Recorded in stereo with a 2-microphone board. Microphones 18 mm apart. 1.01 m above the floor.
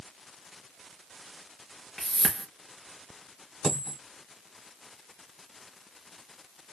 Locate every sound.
2.0 s a whoosh: 15° left (ahead or behind), 3.5 m
3.6 s a dropped coin: 35° left (ahead or behind), 2.5 m